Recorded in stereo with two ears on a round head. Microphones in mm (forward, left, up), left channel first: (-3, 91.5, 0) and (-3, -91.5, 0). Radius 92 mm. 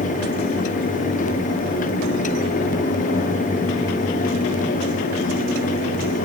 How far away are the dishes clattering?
No dishes clattering in this recording.